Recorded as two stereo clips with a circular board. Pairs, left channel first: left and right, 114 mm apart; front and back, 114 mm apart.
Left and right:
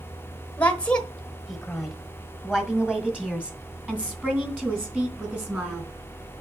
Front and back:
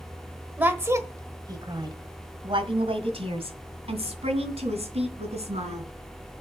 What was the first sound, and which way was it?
A woman speaking, 135° left.